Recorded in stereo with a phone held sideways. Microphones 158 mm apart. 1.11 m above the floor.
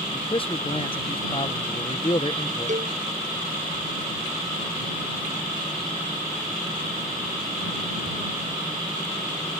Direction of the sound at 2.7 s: 55° right (ahead or behind).